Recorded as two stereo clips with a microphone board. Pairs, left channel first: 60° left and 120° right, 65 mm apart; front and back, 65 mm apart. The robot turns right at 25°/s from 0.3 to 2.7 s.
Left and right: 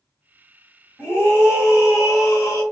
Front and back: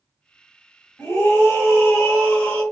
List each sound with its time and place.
1.0 s a scream: 25° left, 1.5 m; by 2.6 s 65° left, 1.5 m